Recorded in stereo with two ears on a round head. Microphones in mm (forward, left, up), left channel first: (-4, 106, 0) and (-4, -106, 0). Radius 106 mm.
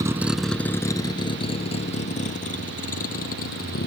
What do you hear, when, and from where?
0.0 s a vehicle: 15° right (ahead or behind); by 3.9 s 40° left (ahead or behind)